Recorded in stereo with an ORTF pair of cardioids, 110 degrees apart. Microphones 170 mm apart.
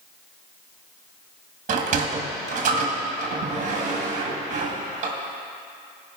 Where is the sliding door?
45° right, 1.6 m.